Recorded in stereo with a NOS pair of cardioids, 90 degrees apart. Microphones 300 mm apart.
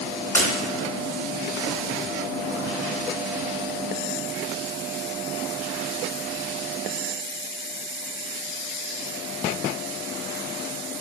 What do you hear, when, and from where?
0.3 s breaking glass: 5° left, 3.5 m